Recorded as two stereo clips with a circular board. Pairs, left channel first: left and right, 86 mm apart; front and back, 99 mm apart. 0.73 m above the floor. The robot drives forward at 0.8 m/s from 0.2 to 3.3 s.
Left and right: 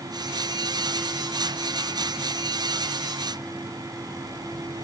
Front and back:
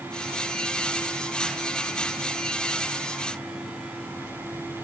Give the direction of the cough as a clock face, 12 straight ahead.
No cough in this recording.